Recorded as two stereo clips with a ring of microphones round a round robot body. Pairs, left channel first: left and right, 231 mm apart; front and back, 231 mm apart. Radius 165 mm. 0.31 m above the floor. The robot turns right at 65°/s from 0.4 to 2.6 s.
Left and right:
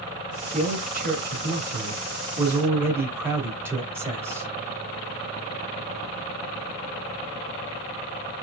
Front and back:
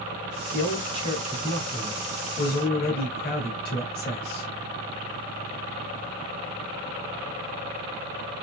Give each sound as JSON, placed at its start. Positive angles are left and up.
{"t": 0.5, "sound": "a man speaking", "azimuth_deg": -150, "distance_m": 1.8}